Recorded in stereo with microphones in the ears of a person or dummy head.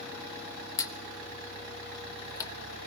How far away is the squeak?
About 1.2 m.